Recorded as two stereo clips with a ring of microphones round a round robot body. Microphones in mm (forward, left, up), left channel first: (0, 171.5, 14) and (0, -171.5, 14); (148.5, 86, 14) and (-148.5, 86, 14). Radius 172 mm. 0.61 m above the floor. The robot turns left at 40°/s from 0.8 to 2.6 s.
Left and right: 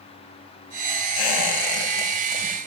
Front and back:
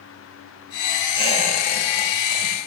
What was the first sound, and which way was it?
A squeak, 75° left.